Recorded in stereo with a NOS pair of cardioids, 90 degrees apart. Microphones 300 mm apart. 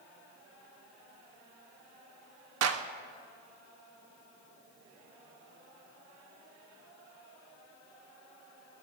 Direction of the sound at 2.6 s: 60° right.